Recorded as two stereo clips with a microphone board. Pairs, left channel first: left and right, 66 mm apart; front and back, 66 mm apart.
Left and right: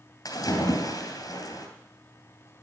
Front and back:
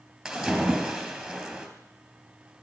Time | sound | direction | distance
0.2 | a splash | 95° left | 3 m